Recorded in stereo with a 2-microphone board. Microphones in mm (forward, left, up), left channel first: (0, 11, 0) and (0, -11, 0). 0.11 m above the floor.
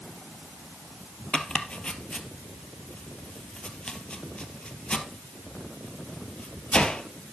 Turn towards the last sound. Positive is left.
turn(degrees=45)  # may be behind; listen again after turning